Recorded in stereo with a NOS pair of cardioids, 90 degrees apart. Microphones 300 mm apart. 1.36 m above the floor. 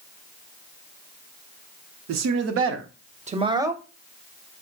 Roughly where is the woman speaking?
Ahead right.